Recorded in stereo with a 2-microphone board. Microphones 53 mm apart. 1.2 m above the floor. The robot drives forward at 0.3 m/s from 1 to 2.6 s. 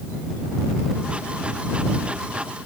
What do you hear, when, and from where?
Only background noise.